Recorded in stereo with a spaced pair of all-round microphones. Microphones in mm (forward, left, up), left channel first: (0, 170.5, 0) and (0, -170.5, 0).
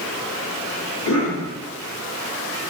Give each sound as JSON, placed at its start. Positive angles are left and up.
{"t": 1.1, "sound": "a cough", "side_deg": 60, "distance_m": 2.0}